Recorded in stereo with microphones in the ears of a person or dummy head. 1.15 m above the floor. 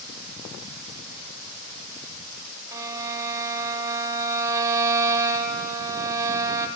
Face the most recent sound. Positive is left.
turn(degrees=-15)  # may be behind; listen again after turning